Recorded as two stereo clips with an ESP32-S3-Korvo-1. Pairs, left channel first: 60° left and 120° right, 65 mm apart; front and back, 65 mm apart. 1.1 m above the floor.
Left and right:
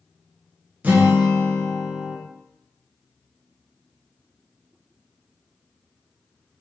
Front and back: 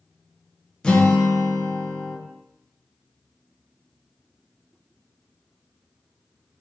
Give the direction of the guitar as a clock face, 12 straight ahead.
2 o'clock.